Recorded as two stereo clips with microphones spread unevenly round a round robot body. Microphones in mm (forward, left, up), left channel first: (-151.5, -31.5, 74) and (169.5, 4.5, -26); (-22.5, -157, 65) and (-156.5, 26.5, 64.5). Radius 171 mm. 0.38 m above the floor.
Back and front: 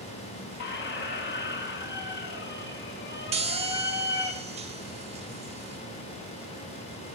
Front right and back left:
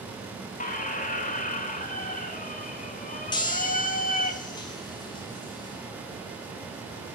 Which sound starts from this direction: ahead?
A chime, at 3.3 s.